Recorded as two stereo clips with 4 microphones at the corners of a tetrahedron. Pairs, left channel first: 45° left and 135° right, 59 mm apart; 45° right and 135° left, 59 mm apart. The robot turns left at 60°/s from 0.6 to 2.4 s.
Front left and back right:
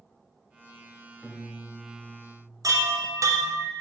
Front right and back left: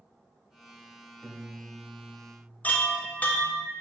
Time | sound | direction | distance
1.2 | a piano | 115° left | 1.0 m
2.6 | a chime | 110° right | 0.5 m